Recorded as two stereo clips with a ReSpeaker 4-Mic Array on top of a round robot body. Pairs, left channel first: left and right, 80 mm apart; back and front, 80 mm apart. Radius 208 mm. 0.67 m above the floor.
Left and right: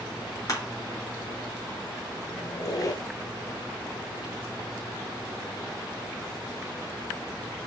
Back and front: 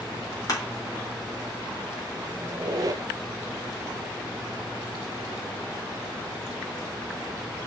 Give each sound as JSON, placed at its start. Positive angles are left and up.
{"t": 0.5, "sound": "crushing", "azimuth_deg": 135, "distance_m": 3.5}
{"t": 2.4, "sound": "a squeak", "azimuth_deg": 45, "distance_m": 0.7}